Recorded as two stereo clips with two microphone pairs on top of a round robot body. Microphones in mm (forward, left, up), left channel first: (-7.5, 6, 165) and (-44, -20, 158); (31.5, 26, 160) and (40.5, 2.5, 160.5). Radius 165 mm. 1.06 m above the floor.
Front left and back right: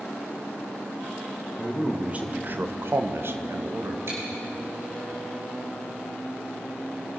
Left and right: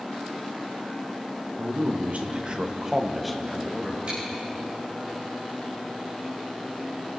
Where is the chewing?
120° right, 7 m.